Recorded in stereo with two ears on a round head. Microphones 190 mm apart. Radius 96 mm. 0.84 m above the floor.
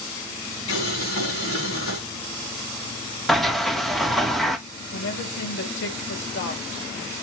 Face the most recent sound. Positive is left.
turn(degrees=55)  # may be behind; listen again after turning